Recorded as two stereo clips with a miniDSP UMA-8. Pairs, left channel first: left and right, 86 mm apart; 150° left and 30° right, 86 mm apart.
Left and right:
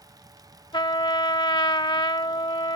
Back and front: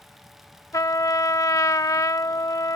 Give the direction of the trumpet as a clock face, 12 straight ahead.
8 o'clock.